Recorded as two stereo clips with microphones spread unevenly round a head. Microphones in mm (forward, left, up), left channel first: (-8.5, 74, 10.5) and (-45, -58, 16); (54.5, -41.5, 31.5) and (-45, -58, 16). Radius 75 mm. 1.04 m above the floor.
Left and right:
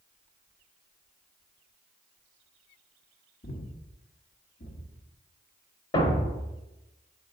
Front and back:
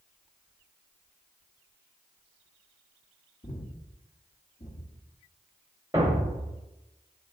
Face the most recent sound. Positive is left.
turn(degrees=115)